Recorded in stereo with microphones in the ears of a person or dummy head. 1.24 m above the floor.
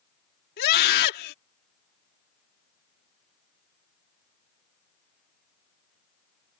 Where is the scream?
55° left (ahead or behind).